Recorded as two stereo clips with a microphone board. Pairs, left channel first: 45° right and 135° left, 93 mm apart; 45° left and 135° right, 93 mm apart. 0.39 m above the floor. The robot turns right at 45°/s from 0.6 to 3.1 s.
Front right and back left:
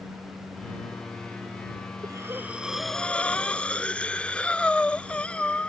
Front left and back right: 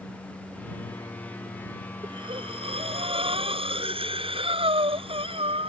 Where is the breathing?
170° right; by 5.7 s 125° right.